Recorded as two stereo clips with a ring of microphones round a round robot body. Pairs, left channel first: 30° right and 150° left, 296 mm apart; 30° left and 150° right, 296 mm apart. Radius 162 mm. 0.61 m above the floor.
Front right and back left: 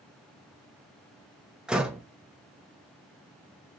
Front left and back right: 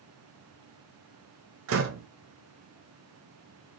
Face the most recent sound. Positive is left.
turn(degrees=-125)